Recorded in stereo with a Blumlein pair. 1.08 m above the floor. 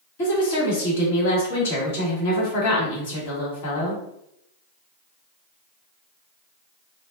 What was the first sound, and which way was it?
A woman speaking, 55° left.